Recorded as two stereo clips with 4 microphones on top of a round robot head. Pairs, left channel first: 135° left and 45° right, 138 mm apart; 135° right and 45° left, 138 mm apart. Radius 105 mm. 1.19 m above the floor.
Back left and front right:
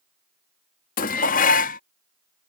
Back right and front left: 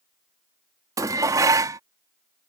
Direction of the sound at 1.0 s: 110° left.